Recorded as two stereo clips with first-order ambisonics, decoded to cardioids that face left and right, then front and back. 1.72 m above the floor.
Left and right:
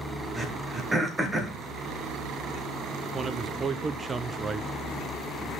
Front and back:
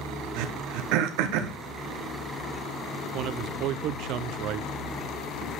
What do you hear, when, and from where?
0.4 s throat clearing: 170° right, 1.1 m
3.1 s a man speaking: 160° right, 0.6 m